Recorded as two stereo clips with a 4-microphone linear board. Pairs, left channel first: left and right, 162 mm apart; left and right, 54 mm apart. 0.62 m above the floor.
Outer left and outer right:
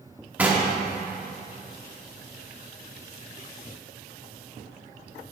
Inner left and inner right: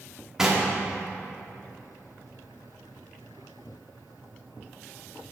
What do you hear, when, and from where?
0.4 s knocking: 10° right (ahead or behind), 1.1 m